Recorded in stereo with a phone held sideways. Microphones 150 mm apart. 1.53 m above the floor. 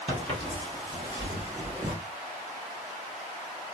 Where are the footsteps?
35° right (ahead or behind), 1.9 m; by 1.9 s 10° right (ahead or behind), 1.6 m.